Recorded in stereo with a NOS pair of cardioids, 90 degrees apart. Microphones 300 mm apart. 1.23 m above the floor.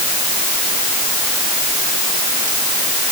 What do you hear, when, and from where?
Only background noise.